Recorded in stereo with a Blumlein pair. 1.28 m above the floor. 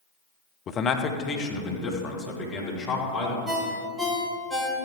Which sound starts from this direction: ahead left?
A man speaking, at 0.7 s.